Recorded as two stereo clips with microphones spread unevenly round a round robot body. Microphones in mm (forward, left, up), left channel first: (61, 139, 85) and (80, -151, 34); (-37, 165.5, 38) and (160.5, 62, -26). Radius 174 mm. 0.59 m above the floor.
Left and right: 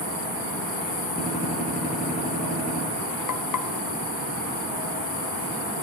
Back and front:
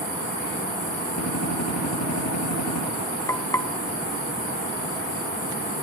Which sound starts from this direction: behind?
A gunshot, at 1.2 s.